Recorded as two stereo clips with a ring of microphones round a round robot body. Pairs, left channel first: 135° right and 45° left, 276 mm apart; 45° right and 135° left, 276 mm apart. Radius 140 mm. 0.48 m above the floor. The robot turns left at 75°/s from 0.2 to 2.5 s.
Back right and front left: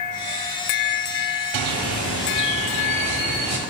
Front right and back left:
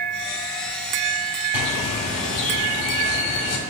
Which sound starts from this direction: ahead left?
A bird, at 1.5 s.